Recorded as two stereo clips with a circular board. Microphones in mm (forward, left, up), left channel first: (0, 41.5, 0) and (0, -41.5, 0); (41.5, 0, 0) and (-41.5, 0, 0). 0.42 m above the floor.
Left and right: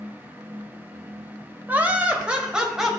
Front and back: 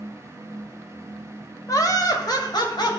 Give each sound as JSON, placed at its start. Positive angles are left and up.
{"t": 1.7, "sound": "laughter", "azimuth_deg": -25, "distance_m": 2.0}